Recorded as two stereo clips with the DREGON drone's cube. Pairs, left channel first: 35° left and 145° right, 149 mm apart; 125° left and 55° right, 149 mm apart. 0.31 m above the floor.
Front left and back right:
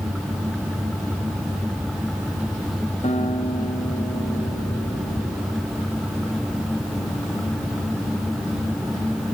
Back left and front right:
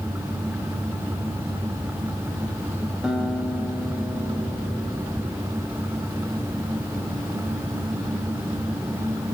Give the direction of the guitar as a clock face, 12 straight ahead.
11 o'clock.